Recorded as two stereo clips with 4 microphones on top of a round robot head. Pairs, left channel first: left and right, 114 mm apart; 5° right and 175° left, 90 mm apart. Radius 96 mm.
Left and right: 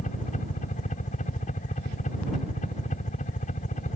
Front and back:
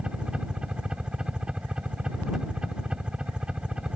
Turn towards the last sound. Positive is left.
turn(degrees=95)